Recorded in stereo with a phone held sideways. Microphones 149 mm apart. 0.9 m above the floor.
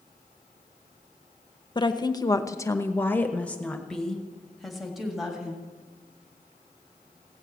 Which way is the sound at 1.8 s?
30° left (ahead or behind).